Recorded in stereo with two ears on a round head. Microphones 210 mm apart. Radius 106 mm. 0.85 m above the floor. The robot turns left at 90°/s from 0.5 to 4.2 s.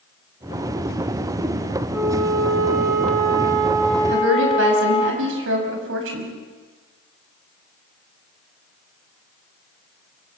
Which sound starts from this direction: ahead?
A flute, at 1.9 s.